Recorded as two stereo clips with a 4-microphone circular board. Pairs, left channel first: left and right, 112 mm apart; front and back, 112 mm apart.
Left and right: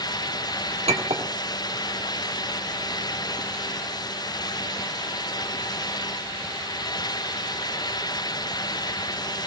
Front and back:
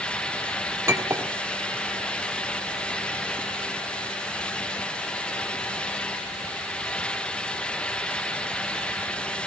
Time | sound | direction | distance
0.9 | a clink | 115° right | 1.3 m